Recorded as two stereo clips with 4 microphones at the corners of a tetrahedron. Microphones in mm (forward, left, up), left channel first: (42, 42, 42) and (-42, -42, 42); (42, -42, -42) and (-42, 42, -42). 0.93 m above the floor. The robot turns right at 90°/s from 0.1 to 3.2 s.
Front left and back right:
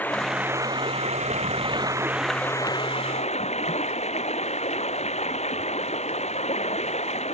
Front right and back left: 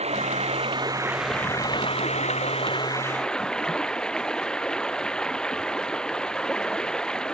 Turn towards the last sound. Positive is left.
turn(degrees=40)